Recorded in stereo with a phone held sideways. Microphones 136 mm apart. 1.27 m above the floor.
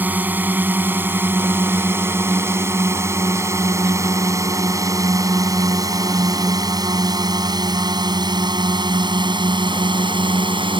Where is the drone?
15° right (ahead or behind); by 10.8 s 40° right (ahead or behind).